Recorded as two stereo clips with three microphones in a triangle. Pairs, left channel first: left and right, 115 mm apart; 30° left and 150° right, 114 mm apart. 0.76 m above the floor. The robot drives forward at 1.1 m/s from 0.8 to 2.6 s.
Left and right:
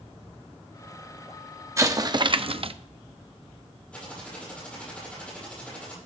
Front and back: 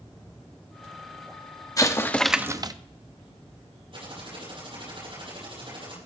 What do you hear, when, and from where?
1.8 s an explosion: 30° right, 1.0 m; by 2.7 s 100° right, 0.6 m
3.9 s typing on a keyboard: 170° left, 8 m